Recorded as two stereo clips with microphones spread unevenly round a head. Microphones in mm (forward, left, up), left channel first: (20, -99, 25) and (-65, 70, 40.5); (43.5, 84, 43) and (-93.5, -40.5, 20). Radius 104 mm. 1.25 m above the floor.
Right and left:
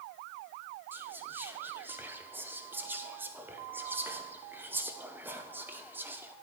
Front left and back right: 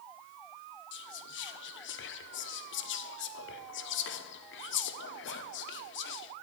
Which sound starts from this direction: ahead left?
Whispering, at 0.9 s.